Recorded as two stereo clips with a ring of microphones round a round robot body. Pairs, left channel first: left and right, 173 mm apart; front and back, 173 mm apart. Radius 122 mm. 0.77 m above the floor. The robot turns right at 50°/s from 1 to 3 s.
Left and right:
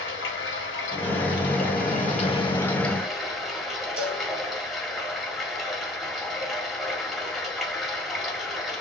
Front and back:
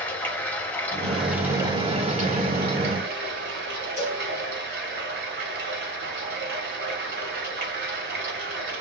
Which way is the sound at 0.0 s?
80° left.